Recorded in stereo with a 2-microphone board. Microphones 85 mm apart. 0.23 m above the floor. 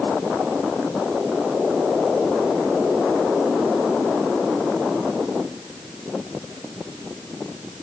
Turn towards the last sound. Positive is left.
No sound to turn to.